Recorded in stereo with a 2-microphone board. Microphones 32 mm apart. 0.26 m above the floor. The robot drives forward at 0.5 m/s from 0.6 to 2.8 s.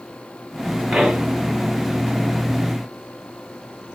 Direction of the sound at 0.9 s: 30° right (ahead or behind).